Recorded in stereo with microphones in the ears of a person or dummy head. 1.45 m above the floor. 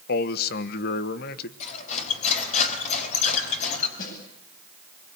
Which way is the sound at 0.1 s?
65° left (ahead or behind).